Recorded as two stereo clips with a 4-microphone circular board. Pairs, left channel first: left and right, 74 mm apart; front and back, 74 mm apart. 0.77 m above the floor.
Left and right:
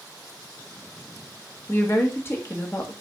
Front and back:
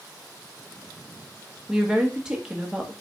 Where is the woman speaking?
105° left, 1.1 m.